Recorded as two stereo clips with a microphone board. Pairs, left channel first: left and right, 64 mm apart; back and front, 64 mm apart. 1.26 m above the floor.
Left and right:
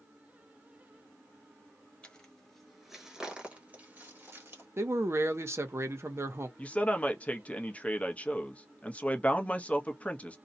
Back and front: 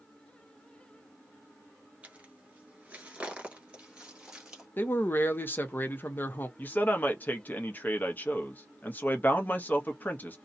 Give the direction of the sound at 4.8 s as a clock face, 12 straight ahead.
4 o'clock.